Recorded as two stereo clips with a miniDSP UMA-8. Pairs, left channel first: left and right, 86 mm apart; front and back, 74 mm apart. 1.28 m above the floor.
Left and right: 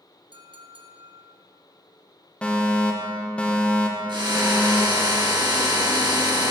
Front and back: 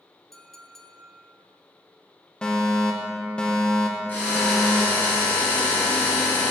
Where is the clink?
85° right, 1.0 m.